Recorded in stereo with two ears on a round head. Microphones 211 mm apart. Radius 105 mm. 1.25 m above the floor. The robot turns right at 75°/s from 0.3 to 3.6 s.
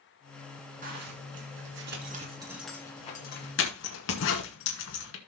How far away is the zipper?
About 2.5 m.